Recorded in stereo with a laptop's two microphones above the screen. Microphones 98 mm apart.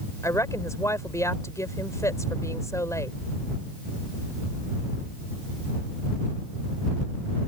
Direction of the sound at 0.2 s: 35° left (ahead or behind).